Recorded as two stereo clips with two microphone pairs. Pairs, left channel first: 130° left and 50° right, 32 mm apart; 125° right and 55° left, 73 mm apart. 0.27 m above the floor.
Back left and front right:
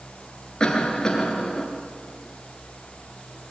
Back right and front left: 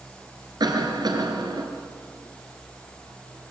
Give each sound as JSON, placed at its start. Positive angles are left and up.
{"t": 0.6, "sound": "a cough", "azimuth_deg": 65, "distance_m": 3.5}